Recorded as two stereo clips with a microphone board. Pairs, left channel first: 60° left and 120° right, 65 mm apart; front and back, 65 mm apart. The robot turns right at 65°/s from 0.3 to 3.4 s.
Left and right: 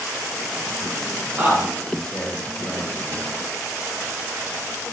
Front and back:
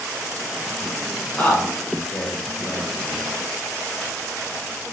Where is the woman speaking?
60° right, 0.7 m; by 3.2 s 60° left, 0.7 m.